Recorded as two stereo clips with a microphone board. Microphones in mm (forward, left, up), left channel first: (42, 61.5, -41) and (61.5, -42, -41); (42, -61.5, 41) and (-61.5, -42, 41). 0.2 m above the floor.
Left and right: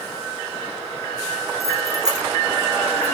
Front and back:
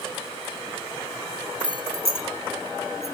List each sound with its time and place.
1.6 s keys jangling: 30° right, 1.5 m; by 3.1 s 25° right, 2.5 m